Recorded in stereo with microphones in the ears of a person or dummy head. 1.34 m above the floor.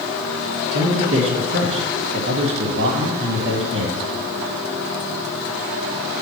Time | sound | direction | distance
0.7 | a man speaking | 60° right (ahead or behind) | 1.5 m